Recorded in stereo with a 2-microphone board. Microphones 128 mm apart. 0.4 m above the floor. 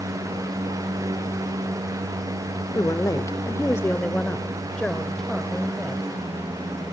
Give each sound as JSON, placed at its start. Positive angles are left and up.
{"t": 2.8, "sound": "a woman speaking", "side_deg": 30, "distance_m": 0.9}